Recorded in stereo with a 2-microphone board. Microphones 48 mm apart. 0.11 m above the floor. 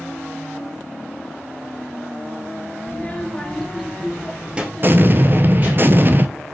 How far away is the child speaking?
About 1.5 m.